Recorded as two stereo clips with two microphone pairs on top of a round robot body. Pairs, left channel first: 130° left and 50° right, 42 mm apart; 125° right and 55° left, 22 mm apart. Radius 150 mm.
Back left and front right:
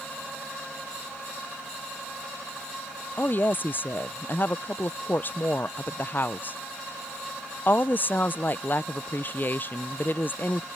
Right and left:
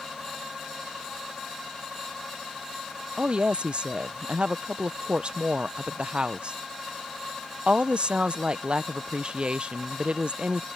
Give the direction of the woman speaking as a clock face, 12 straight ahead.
9 o'clock.